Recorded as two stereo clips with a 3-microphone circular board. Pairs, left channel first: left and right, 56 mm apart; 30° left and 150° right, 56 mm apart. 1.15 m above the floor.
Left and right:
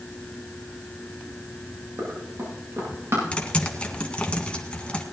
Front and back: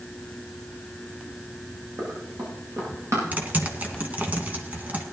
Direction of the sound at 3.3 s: 155° left.